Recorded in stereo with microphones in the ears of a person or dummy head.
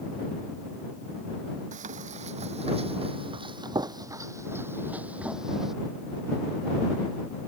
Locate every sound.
1.7 s running footsteps: 40° right (ahead or behind); by 5.8 s centre (ahead or behind)